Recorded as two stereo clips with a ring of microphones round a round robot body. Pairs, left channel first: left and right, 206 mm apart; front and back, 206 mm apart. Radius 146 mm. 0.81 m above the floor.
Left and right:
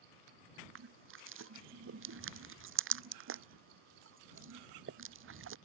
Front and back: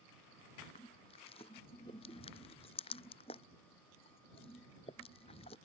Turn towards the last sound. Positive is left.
turn(degrees=-75)